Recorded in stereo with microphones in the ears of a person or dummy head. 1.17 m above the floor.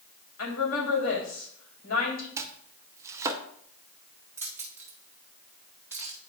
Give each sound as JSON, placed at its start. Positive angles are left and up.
{"t": 0.4, "sound": "a woman speaking", "side_deg": 80, "distance_m": 3.0}
{"t": 2.4, "sound": "chopping", "side_deg": -15, "distance_m": 0.6}
{"t": 4.4, "sound": "keys jangling", "side_deg": -10, "distance_m": 1.7}